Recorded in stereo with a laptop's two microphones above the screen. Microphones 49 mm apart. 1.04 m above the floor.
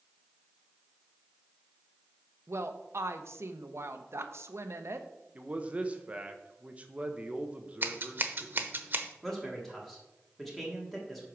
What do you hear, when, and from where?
2.5 s a woman speaking: 60° right (ahead or behind), 0.8 m
5.3 s a man speaking: 25° right (ahead or behind), 0.8 m
7.8 s scissors: 45° right (ahead or behind), 0.9 m
9.2 s a man speaking: centre (ahead or behind), 1.7 m